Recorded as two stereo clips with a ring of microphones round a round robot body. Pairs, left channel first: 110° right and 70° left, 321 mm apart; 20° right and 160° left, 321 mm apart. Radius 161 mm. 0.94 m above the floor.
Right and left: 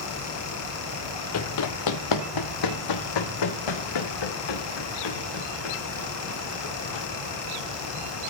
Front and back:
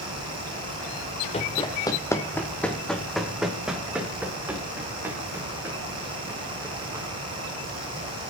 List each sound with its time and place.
1.3 s running footsteps: 90° right, 1.2 m; by 7.0 s 120° right, 4.5 m